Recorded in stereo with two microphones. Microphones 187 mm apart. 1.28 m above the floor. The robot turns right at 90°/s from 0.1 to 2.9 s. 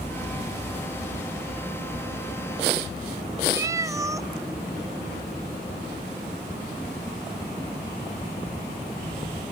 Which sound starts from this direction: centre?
A cat meowing, at 3.5 s.